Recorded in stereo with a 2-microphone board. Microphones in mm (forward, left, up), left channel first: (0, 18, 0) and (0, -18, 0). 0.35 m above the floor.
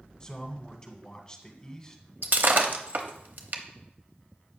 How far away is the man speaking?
About 1.1 m.